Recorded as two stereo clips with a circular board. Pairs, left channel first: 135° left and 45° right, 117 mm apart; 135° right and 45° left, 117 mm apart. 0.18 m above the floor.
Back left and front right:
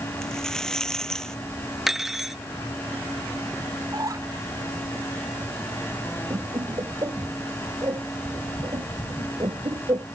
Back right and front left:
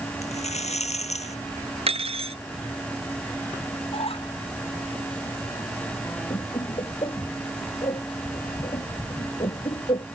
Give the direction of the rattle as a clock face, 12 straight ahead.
5 o'clock.